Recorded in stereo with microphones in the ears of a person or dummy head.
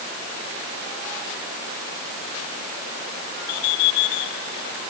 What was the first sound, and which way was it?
Only background noise.